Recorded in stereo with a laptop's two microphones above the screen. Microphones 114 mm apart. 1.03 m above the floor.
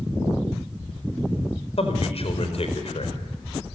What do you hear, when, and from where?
1.8 s a man speaking: 60° left (ahead or behind), 4.5 m